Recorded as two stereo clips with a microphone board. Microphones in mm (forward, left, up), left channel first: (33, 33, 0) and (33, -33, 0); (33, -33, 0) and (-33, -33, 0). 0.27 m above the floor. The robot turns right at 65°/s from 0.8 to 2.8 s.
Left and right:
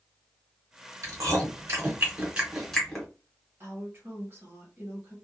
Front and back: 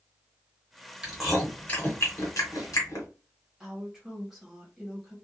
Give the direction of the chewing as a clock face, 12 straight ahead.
4 o'clock.